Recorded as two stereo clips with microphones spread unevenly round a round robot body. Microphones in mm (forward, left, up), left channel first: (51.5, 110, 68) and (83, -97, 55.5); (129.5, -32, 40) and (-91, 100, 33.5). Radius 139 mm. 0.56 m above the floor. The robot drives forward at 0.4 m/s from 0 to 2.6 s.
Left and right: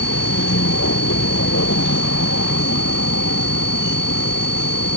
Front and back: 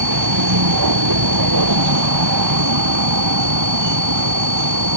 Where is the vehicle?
145° left.